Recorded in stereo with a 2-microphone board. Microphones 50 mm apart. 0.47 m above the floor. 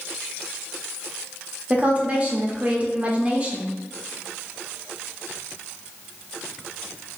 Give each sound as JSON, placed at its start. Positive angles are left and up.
{"t": 1.7, "sound": "a woman speaking", "side_deg": -30, "distance_m": 0.9}